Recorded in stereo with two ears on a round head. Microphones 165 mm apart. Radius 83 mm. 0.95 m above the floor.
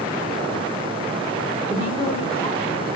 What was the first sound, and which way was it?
A woman speaking, 30° left (ahead or behind).